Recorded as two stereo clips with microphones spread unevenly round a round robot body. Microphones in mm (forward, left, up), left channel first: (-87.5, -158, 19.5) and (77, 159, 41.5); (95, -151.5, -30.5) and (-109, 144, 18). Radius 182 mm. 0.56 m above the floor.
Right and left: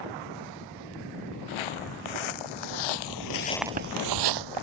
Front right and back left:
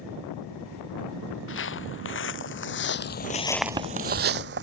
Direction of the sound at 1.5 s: 115° right.